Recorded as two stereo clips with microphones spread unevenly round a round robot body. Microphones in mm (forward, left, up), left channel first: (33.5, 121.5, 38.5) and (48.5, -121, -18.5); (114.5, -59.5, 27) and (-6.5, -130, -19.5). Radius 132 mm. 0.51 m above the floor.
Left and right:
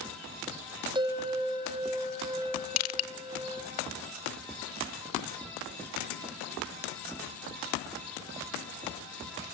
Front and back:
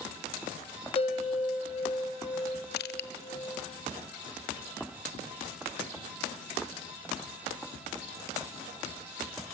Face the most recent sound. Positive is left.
turn(degrees=65)